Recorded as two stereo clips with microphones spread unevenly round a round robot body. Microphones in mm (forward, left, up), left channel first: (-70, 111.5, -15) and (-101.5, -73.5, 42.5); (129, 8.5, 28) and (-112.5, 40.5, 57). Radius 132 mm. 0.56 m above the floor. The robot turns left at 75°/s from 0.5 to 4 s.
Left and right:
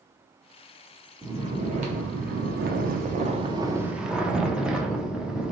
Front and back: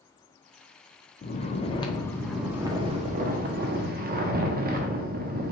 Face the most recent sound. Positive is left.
turn(degrees=150)